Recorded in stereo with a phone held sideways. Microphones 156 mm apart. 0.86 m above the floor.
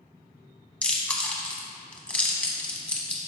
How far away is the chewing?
About 0.9 m.